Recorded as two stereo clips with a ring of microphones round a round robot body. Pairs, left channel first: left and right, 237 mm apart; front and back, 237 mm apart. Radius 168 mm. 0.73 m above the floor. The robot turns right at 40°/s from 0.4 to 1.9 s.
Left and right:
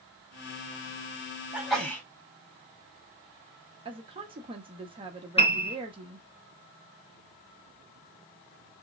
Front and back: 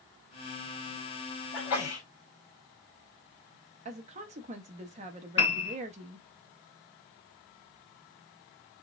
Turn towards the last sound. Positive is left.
turn(degrees=25)